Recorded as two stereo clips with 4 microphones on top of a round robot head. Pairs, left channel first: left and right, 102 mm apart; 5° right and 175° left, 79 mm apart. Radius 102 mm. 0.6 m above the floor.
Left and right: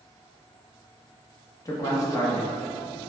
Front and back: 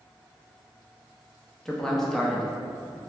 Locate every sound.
1.6 s a man speaking: 75° left, 0.7 m